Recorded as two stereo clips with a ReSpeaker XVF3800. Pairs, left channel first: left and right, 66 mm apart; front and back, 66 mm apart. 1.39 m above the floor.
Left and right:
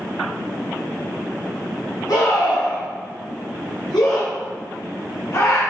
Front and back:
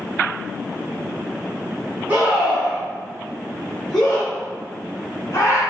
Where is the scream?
115° left, 3.5 m; by 5.6 s 45° left, 3 m.